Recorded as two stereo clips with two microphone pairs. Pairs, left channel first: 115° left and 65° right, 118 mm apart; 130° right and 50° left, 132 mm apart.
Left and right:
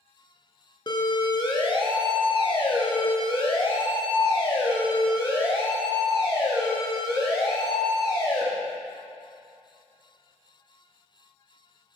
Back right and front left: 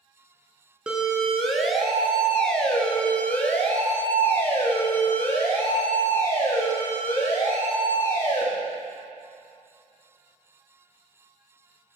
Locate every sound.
0.9 s a siren: 125° left, 2.5 m; by 8.5 s 160° left, 7 m